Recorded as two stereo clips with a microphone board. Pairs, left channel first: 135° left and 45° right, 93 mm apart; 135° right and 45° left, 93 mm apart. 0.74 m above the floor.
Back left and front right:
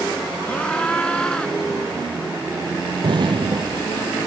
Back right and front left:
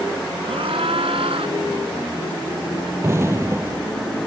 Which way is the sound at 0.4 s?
60° left.